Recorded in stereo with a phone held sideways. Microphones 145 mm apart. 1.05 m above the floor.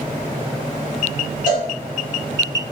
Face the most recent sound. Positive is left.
turn(degrees=65)  # may be behind; listen again after turning